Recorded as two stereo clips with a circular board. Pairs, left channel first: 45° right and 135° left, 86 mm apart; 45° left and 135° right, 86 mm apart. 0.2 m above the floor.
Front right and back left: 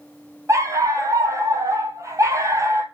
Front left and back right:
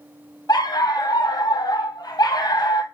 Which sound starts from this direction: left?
A dog barking, at 0.5 s.